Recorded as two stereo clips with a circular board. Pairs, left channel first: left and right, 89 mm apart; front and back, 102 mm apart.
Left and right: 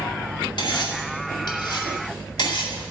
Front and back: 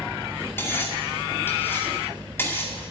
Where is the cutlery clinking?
65° left, 2 m.